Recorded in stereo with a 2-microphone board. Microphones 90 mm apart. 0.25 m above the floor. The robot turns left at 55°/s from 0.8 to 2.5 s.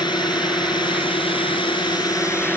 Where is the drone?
120° left; by 2.6 s 25° left.